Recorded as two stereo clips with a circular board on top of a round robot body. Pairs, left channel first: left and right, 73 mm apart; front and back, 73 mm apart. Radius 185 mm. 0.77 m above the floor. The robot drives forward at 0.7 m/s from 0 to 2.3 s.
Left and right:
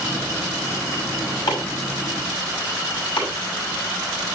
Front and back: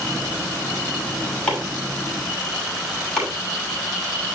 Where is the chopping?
75° left, 6.5 m; by 3.3 s 80° left, 6.5 m.